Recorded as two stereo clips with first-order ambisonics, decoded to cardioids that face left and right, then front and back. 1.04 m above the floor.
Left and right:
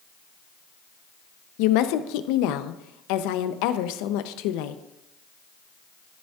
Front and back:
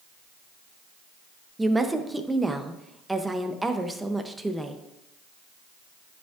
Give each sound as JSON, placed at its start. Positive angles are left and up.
{"t": 1.6, "sound": "a woman speaking", "azimuth_deg": 95, "distance_m": 0.6}